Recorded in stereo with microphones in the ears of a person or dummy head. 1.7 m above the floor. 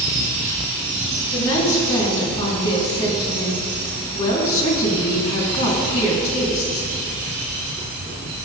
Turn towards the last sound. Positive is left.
turn(degrees=40)  # may be behind; listen again after turning